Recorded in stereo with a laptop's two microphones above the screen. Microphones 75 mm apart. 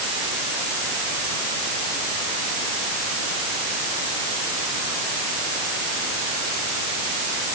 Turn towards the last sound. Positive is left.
No sound to turn to.